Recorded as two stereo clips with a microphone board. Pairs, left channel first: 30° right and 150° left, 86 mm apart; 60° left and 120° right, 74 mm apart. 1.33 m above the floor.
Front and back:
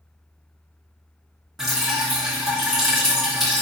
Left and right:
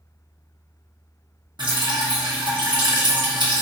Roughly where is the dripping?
Behind right.